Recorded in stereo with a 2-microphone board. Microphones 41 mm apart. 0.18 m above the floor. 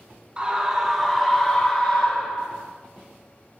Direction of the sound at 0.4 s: 20° right (ahead or behind).